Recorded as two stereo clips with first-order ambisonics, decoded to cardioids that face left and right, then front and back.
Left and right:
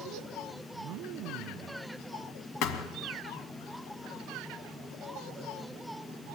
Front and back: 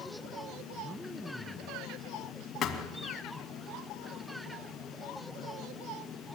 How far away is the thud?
About 2 m.